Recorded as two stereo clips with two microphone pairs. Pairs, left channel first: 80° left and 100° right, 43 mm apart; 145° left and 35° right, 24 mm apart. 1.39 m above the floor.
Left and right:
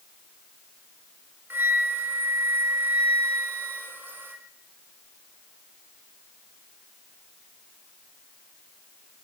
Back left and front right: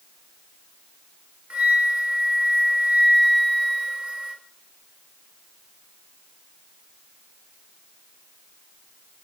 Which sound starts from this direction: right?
A flute, at 1.5 s.